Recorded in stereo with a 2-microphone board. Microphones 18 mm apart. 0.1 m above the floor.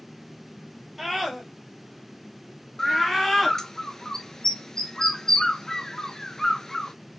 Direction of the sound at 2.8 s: 30° left (ahead or behind).